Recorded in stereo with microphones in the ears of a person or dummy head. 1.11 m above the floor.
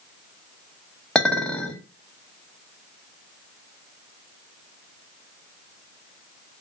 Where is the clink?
5° left (ahead or behind), 0.6 m.